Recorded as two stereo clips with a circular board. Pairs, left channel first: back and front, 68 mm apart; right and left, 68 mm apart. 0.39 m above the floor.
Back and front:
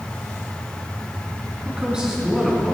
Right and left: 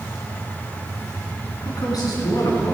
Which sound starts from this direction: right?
A man speaking, at 1.6 s.